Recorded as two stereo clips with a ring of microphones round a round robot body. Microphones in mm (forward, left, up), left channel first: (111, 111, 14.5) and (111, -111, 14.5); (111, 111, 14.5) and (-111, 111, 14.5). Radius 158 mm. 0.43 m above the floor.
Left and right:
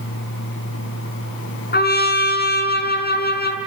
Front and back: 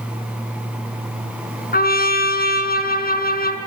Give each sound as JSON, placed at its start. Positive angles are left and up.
{"t": 1.7, "sound": "a trumpet", "azimuth_deg": 45, "distance_m": 5.0}